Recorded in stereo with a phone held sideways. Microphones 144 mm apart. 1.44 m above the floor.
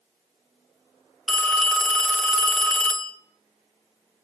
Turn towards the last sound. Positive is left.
turn(degrees=5)  # may be behind; listen again after turning